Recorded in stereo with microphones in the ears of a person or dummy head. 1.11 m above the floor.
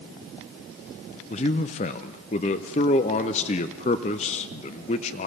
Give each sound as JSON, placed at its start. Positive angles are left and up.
{"t": 1.3, "sound": "a man speaking", "side_deg": 35, "distance_m": 0.6}